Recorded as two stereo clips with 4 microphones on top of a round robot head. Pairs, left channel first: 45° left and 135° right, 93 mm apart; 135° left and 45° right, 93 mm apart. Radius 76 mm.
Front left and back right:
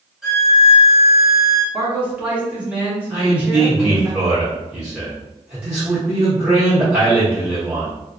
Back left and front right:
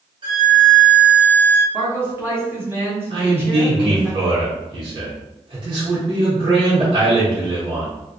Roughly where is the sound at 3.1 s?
Ahead right.